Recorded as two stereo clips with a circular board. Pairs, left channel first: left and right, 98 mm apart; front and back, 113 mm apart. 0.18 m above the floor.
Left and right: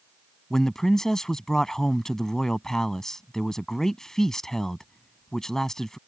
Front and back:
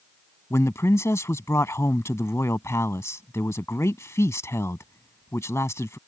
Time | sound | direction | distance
0.5 | a man speaking | 10° left | ?